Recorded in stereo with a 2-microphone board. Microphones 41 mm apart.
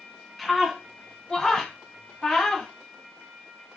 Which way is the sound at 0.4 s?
Centre (ahead or behind).